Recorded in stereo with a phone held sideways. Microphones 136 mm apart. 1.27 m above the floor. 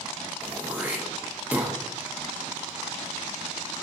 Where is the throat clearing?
10° right (ahead or behind), 0.5 m.